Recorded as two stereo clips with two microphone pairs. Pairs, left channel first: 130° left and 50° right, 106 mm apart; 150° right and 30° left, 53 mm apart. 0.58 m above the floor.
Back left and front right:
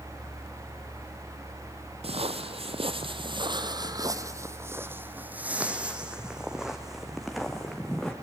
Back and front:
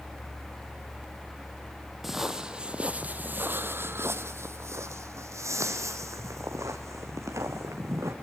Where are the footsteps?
55° right, 1.3 m; by 8.1 s 40° left, 3 m.